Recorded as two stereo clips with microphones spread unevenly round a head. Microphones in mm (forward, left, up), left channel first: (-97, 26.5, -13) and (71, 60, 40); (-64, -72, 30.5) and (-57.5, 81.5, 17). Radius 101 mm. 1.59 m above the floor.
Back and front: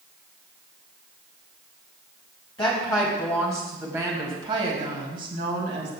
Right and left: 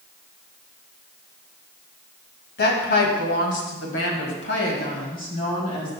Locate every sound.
2.6 s a woman speaking: 95° right, 2 m; by 6.0 s 25° right, 2 m